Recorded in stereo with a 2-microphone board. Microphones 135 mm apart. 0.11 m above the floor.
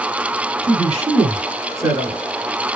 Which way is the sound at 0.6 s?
50° right (ahead or behind).